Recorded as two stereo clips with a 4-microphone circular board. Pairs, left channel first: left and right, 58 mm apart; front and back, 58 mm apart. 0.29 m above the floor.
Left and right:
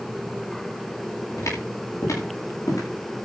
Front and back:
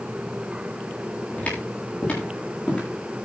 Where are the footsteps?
65° left, 9 m; by 2.8 s 70° left, 9 m.